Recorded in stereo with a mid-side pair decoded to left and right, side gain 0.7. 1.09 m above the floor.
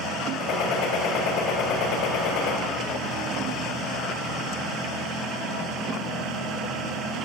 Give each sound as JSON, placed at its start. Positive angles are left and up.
{"t": 0.4, "sound": "a gunshot", "azimuth_deg": 60, "distance_m": 3.0}